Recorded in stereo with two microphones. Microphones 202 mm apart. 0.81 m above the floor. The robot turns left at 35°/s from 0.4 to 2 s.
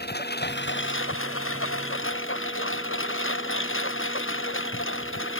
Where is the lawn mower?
130° left; by 5.4 s 75° left.